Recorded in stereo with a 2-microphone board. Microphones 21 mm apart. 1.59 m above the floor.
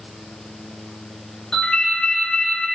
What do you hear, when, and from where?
1.5 s a ringtone: 40° left (ahead or behind), 2.0 m